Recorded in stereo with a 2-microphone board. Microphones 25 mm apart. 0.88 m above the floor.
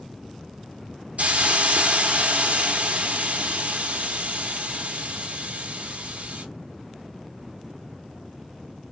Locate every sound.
1.2 s a hiss: 65° right (ahead or behind), 0.8 m